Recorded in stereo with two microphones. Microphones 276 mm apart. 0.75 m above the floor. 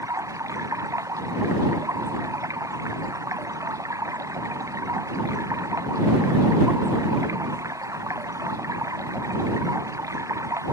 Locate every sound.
0.0 s running water: 10° right (ahead or behind)